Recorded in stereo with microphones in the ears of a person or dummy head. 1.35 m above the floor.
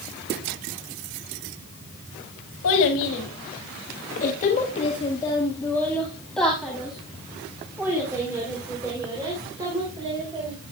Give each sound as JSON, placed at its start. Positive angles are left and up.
{"t": 2.6, "sound": "a child speaking", "side_deg": 75, "distance_m": 1.7}